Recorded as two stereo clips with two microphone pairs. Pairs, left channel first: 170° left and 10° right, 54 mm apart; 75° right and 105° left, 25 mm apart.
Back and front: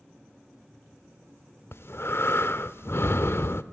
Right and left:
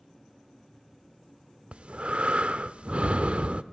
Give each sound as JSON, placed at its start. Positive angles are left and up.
{"t": 1.7, "sound": "breathing", "azimuth_deg": 140, "distance_m": 0.5}